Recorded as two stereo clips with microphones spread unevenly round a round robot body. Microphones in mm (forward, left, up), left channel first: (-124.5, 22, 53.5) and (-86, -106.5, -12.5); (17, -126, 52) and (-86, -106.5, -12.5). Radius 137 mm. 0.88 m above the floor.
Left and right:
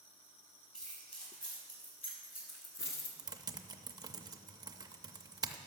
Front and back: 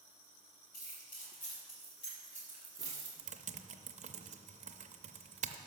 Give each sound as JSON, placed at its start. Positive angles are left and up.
{"t": 0.7, "sound": "keys jangling", "azimuth_deg": 20, "distance_m": 2.5}
{"t": 3.2, "sound": "typing on a keyboard", "azimuth_deg": -165, "distance_m": 0.6}